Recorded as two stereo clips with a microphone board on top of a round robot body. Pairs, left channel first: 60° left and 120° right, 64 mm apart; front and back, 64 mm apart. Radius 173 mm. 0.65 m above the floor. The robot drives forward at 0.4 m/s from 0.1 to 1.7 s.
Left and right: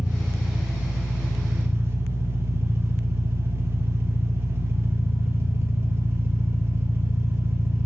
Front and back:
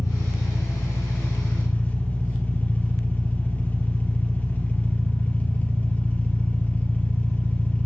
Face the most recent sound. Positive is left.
turn(degrees=-65)